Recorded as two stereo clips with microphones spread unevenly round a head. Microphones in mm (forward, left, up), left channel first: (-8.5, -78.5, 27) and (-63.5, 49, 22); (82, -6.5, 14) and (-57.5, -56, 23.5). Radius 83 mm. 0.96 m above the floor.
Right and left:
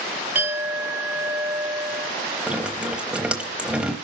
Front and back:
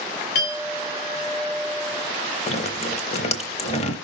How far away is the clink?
About 2 m.